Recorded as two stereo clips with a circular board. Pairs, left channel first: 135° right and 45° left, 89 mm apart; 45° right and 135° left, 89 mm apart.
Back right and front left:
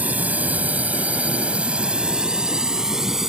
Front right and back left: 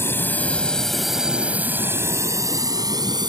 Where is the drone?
10° right; by 3.3 s 130° left.